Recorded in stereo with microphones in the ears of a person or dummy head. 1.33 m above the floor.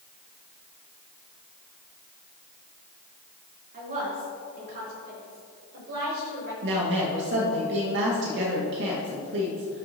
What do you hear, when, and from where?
3.7 s a woman speaking: 45° right (ahead or behind), 3 m; by 6.5 s 55° right (ahead or behind), 5.5 m
6.6 s a woman speaking: 65° right (ahead or behind), 1.6 m